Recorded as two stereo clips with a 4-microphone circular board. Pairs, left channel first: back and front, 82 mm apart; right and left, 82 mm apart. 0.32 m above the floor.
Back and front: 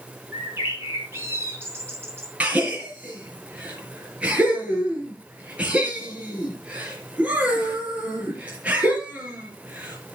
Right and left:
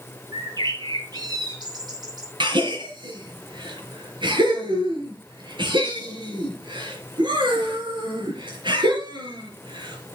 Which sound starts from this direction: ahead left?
A bird, at 0.3 s.